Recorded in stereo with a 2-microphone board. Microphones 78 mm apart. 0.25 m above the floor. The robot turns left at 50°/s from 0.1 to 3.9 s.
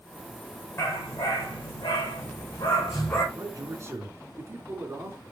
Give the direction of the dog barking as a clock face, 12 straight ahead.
7 o'clock.